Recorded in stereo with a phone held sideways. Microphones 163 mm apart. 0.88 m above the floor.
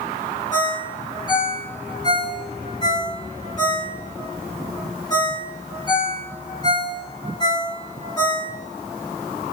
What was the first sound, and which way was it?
A ringtone, 25° left (ahead or behind).